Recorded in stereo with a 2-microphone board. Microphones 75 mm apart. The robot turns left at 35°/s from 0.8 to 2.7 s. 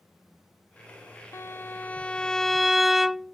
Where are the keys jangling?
No keys jangling in this recording.